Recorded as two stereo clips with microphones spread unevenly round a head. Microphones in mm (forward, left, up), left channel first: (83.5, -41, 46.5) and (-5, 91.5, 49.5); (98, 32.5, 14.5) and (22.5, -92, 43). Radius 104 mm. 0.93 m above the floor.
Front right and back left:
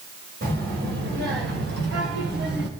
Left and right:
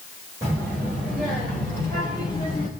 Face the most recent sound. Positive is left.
turn(degrees=120)